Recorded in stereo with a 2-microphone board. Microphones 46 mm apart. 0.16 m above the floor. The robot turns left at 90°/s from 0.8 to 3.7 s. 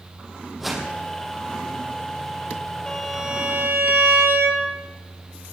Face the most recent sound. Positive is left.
turn(degrees=-55)